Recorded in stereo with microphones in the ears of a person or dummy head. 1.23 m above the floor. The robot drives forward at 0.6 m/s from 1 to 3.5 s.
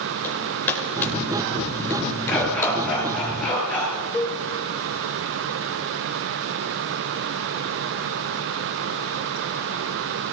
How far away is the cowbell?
About 4 m.